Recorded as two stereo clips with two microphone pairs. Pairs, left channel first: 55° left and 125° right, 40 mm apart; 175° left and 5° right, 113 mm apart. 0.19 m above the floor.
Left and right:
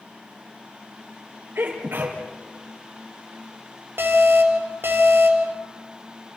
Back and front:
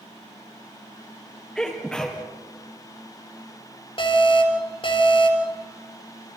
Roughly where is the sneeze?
Right.